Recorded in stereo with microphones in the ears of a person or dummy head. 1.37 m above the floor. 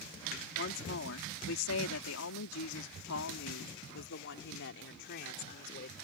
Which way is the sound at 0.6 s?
60° left (ahead or behind).